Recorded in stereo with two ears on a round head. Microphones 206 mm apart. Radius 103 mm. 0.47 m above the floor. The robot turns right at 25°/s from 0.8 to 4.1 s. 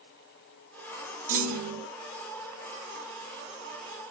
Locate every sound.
1.3 s a clunk: 35° right (ahead or behind), 0.7 m; by 1.9 s 50° right (ahead or behind), 0.7 m